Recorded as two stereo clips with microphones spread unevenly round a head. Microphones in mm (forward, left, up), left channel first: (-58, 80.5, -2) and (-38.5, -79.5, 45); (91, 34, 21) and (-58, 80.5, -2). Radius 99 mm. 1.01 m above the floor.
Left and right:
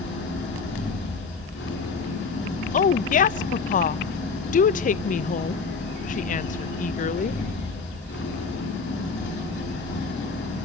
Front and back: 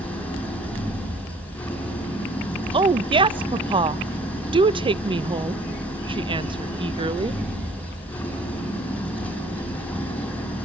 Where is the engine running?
65° left, 7 m.